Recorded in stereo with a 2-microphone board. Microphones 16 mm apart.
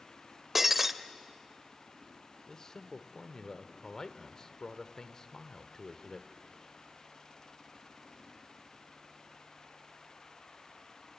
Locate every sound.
0.6 s breaking glass: 15° right (ahead or behind), 0.7 m
2.5 s a man speaking: 35° left (ahead or behind), 1.2 m